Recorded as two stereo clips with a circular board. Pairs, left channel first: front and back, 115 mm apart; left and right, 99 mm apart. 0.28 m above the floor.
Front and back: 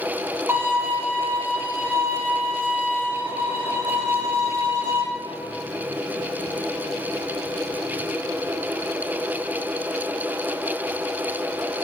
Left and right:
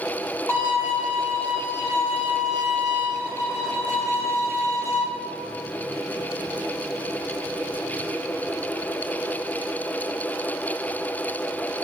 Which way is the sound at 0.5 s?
125° left.